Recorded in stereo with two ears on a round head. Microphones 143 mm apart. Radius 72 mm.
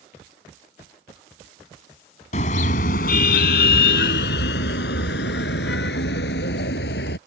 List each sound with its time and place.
2.3 s a car horn: 45° left (ahead or behind); by 7.2 s 85° left